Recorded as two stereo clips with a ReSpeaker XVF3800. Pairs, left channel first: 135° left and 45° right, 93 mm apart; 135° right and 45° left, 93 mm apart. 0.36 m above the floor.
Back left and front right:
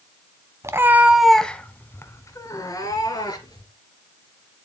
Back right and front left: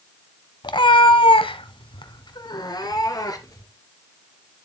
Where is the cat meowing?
100° right, 0.9 m; by 3.7 s 175° left, 2.5 m.